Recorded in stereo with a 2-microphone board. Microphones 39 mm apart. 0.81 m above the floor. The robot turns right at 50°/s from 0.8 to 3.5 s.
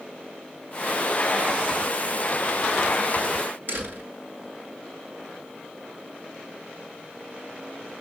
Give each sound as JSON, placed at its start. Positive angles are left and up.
{"t": 3.7, "sound": "a door slam", "side_deg": -55, "distance_m": 8.0}